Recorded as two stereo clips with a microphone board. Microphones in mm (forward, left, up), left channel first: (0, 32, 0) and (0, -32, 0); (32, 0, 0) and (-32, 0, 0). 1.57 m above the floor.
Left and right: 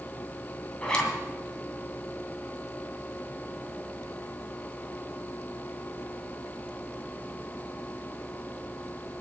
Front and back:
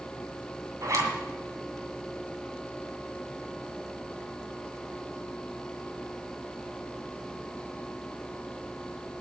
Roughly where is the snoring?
No snoring in this recording.